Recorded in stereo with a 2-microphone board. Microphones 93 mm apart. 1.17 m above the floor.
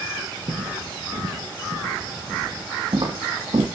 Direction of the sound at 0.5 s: 50° right (ahead or behind).